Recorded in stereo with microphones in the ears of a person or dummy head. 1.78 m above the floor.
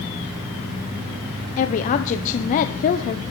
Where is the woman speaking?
40° left (ahead or behind), 1.2 m.